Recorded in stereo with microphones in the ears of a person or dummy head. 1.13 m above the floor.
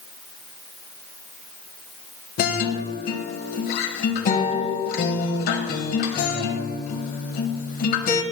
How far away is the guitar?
About 1.4 m.